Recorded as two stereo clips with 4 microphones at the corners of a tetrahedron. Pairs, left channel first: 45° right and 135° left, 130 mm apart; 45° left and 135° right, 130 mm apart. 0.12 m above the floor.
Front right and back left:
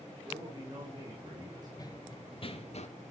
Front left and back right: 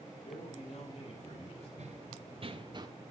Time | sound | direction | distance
0.2 | a man speaking | 80° left | 5.5 m
1.8 | running footsteps | 105° right | 1.5 m